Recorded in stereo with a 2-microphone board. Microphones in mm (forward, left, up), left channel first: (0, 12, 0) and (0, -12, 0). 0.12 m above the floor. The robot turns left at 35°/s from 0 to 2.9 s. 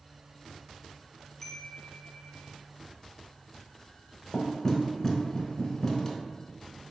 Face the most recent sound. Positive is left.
turn(degrees=20)  # may be behind; listen again after turning